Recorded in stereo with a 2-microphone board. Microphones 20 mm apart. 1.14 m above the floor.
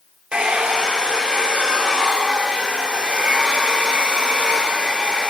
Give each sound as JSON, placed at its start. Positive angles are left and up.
{"t": 0.3, "sound": "a hair dryer", "side_deg": -70, "distance_m": 3.5}